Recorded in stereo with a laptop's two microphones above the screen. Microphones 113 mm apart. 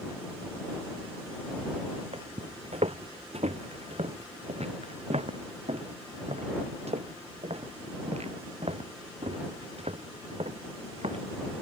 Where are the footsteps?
70° right (ahead or behind); by 11.2 s 75° right (ahead or behind).